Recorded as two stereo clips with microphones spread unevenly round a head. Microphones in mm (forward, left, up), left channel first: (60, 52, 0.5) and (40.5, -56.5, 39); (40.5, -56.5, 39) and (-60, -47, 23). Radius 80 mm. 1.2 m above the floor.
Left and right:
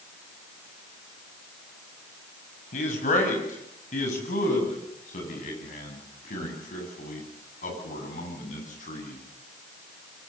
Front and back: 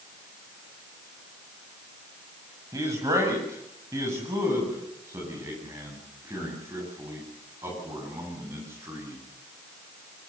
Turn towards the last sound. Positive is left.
turn(degrees=100)